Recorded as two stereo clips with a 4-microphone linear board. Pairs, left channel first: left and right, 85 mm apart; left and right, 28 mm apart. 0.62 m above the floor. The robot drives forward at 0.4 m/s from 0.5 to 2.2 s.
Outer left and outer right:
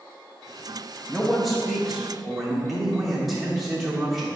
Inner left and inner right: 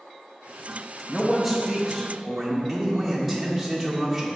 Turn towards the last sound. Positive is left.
turn(degrees=0)  # may be behind; listen again after turning